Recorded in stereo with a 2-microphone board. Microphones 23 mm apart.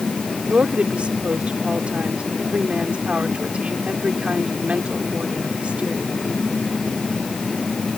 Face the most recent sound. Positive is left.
turn(degrees=-65)  # may be behind; listen again after turning